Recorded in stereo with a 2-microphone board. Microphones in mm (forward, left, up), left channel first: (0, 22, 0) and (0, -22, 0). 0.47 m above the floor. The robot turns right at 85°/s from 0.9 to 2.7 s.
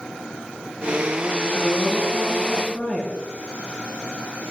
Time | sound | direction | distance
1.5 | a woman speaking | 45° left | 7.5 m